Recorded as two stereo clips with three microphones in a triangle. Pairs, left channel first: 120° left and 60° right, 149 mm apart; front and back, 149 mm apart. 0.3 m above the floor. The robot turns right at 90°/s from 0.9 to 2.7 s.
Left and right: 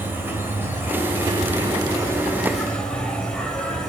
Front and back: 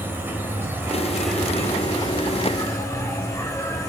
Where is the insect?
120° right, 2.0 m; by 3.9 s 45° left, 2.0 m.